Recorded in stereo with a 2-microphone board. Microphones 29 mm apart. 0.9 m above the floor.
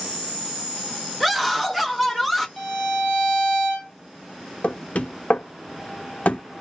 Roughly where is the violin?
Centre.